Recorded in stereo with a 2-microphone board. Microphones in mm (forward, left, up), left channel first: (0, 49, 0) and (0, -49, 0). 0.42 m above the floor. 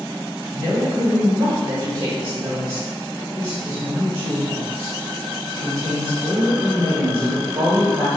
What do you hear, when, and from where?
0.5 s a woman speaking: 45° right (ahead or behind), 1.5 m